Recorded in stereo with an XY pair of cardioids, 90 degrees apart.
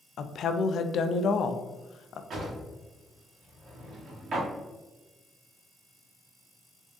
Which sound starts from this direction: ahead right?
A drawer, at 2.3 s.